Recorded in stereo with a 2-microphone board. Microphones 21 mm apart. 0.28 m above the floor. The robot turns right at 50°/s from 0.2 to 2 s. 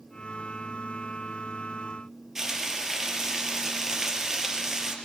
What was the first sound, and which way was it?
Frying, 20° right (ahead or behind).